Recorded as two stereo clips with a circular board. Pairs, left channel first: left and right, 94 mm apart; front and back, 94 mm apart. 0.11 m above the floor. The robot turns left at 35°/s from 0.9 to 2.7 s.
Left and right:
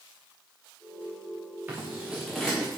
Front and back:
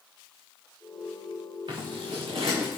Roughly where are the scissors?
Behind.